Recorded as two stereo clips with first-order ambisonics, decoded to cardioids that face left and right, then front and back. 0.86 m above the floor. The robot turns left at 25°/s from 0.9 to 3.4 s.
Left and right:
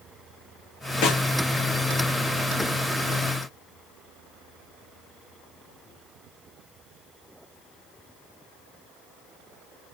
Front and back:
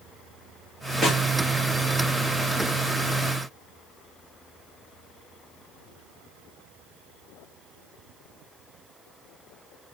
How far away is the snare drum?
About 2.5 m.